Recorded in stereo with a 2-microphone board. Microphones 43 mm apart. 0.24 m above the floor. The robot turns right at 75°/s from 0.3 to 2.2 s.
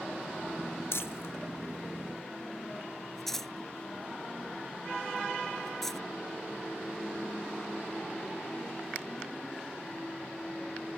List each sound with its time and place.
0.9 s crumpling: 75° left (ahead or behind); by 6.0 s 5° left (ahead or behind)